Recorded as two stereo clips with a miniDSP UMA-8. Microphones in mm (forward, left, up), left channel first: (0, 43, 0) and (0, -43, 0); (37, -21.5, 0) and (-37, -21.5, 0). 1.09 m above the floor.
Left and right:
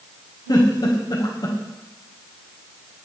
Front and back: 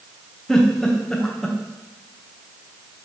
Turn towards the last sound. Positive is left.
turn(degrees=80)